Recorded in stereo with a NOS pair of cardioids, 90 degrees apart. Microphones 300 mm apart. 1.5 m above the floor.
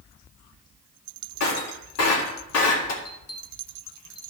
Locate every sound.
1.4 s breaking glass: 60° left, 3 m
3.0 s a bell: 50° left, 2.5 m